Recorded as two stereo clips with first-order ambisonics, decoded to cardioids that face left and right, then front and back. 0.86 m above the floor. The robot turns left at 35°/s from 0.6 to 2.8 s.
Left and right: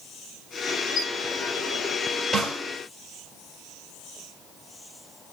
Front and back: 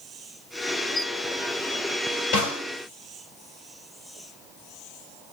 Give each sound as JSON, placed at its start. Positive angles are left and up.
{"t": 0.9, "sound": "a squeak", "azimuth_deg": 35, "distance_m": 3.0}
{"t": 2.3, "sound": "a snare drum", "azimuth_deg": -5, "distance_m": 4.0}